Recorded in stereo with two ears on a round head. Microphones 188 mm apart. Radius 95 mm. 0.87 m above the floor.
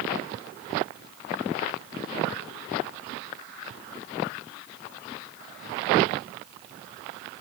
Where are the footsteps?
No footsteps in this recording.